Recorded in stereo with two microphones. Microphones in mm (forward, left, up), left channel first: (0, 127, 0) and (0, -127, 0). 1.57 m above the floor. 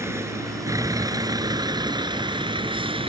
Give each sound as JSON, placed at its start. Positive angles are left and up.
{"t": 0.0, "sound": "a vehicle", "side_deg": -10}